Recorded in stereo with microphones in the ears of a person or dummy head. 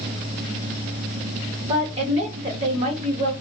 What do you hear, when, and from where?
1.6 s a woman speaking: 35° right (ahead or behind), 1.4 m